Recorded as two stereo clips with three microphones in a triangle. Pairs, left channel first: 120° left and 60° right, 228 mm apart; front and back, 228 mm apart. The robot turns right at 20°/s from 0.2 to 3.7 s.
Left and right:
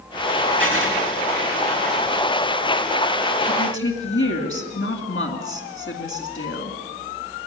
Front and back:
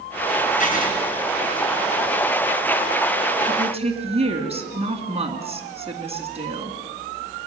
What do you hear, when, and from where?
0.6 s writing: 50° right, 3.5 m; by 0.9 s 45° right, 3.5 m
3.5 s a woman speaking: 115° left, 2.5 m; by 6.8 s 120° left, 2.5 m